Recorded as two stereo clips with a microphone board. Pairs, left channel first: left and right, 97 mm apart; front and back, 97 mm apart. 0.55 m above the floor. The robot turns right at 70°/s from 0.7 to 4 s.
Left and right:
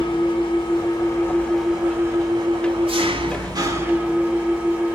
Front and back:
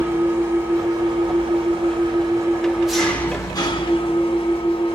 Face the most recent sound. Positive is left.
turn(degrees=-15)